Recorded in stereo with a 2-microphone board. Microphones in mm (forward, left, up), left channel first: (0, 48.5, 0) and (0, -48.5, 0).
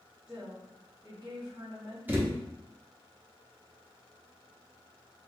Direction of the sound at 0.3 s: 40° right (ahead or behind).